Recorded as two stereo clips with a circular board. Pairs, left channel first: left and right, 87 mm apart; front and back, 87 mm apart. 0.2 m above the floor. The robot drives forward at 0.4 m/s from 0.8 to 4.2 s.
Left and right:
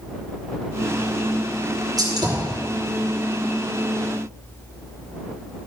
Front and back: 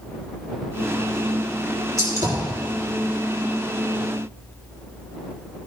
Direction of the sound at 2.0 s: 130° right.